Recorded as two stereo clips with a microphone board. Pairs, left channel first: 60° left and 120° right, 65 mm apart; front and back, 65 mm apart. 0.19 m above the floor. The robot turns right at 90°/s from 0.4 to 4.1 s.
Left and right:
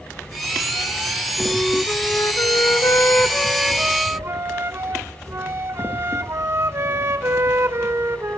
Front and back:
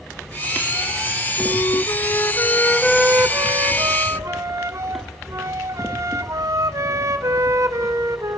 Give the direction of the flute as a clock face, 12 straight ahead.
1 o'clock.